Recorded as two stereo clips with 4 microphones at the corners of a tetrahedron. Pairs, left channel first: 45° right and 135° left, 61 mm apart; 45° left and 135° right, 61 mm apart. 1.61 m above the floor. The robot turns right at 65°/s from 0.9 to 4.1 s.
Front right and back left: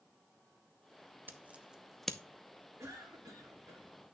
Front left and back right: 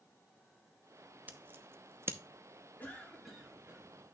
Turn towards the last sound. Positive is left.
turn(degrees=-175)